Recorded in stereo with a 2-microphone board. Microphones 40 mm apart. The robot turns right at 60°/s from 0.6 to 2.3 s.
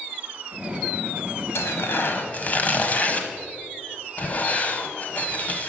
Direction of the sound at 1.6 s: 75° left (ahead or behind).